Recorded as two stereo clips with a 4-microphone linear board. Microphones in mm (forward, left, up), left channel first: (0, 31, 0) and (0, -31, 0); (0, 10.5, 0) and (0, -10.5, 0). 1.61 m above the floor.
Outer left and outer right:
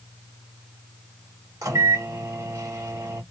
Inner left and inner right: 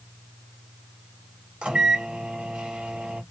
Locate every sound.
1.6 s a microwave: 60° right (ahead or behind), 1.4 m